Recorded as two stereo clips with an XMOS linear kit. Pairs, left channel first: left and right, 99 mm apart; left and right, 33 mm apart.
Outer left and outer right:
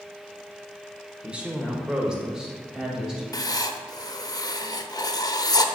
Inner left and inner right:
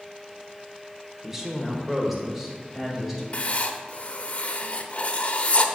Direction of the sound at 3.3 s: 40° left (ahead or behind).